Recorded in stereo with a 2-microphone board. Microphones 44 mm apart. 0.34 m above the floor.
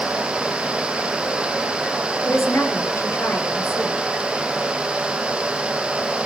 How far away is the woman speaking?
About 8 m.